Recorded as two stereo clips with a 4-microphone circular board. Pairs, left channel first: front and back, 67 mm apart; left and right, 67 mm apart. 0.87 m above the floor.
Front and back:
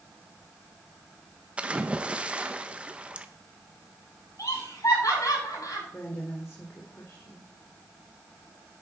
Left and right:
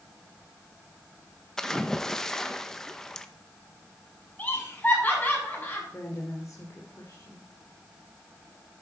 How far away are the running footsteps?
I don't hear running footsteps.